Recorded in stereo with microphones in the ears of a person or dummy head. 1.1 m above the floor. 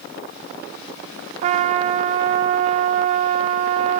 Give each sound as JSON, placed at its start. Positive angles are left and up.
{"t": 1.4, "sound": "a trumpet", "side_deg": -45, "distance_m": 0.6}